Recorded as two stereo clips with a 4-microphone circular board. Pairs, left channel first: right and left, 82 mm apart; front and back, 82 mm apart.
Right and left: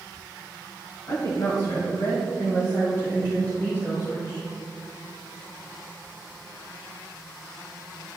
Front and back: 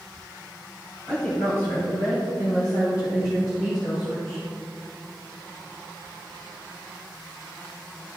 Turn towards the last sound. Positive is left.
turn(degrees=-30)